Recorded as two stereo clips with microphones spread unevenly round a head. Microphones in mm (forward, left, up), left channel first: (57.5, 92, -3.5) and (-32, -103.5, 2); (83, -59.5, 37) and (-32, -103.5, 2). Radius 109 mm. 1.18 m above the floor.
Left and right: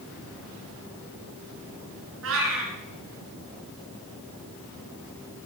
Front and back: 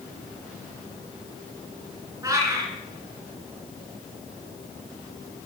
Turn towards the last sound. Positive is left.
turn(degrees=-90)